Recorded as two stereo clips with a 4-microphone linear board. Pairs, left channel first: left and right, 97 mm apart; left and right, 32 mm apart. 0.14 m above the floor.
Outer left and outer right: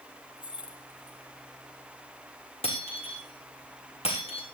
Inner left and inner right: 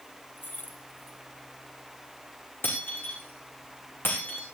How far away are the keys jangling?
About 3 m.